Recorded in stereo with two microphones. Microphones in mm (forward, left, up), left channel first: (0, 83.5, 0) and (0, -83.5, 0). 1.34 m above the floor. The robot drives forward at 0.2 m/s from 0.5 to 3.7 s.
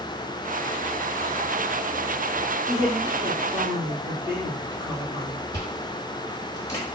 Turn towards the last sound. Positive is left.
turn(degrees=20)  # may be behind; listen again after turning